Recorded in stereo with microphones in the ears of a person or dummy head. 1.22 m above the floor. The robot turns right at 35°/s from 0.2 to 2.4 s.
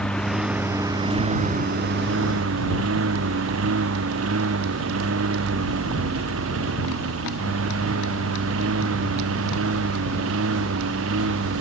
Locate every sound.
0.0 s a lawn mower: 5° left (ahead or behind); by 11.6 s 85° right